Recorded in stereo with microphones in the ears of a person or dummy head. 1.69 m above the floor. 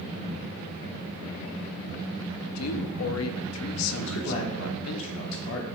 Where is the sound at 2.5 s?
85° left, 0.5 m.